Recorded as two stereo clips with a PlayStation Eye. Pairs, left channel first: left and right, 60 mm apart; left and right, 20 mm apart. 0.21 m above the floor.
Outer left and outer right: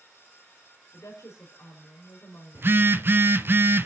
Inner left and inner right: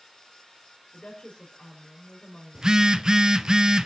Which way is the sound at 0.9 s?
55° left (ahead or behind).